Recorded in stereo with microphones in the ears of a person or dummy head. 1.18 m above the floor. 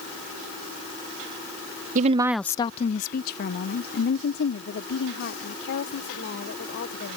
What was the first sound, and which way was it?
A woman speaking, 50° right (ahead or behind).